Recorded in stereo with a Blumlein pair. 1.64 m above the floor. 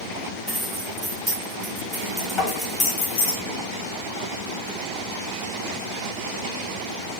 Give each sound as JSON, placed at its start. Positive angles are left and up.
{"t": 0.5, "sound": "keys jangling", "azimuth_deg": -10, "distance_m": 2.0}
{"t": 2.4, "sound": "tapping", "azimuth_deg": 20, "distance_m": 2.5}